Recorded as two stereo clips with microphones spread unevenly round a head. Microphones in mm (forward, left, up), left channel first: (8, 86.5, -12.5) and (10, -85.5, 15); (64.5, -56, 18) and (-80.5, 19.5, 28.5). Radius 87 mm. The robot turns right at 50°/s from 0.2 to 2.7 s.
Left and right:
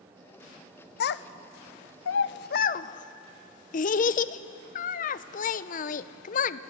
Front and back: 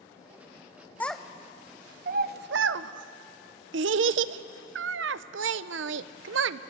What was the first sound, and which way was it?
A child speaking, 55° left.